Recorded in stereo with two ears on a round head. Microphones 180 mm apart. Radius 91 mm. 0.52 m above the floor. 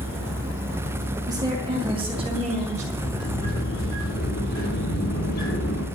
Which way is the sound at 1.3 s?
20° right (ahead or behind).